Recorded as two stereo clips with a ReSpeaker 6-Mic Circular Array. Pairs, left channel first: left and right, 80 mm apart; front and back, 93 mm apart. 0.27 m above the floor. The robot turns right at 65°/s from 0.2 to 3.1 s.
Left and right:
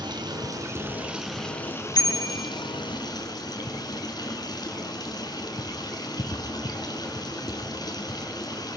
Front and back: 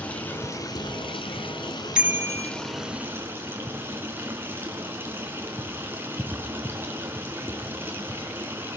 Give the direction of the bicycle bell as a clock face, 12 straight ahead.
9 o'clock.